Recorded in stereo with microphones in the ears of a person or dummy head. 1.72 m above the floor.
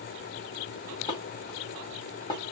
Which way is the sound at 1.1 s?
30° left (ahead or behind).